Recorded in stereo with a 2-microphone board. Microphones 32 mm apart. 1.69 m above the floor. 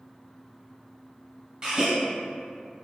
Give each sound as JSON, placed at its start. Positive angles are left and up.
{"t": 1.6, "sound": "a gasp", "side_deg": -25, "distance_m": 1.1}